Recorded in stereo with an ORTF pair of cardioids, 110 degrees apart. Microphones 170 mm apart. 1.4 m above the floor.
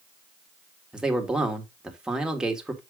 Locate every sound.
0.9 s a man speaking: 5° right, 2 m